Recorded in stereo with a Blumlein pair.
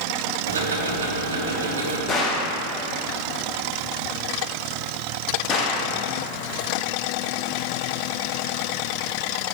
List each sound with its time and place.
0.5 s ticking: 70° right, 1.0 m
2.1 s a gunshot: 20° left, 1.0 m